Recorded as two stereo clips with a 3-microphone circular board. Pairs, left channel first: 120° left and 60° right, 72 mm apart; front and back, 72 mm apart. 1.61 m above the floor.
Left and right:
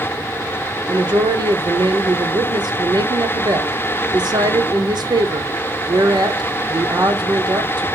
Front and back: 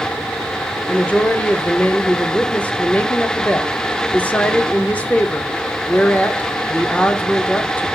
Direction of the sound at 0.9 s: 70° right.